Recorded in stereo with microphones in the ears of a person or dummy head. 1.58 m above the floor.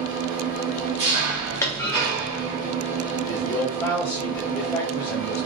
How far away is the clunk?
About 0.6 m.